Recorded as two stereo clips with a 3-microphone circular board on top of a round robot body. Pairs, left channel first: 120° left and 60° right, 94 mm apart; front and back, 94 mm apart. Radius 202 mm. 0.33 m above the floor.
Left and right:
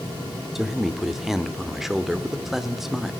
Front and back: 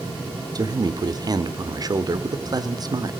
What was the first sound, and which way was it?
A man speaking, 145° right.